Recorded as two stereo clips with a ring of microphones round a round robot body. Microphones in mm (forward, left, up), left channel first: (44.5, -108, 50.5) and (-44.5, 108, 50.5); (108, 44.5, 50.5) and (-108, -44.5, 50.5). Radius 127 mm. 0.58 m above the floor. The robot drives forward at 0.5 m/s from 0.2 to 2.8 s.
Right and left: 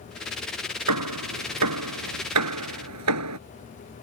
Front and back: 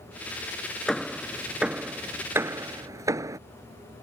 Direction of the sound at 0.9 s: 110° left.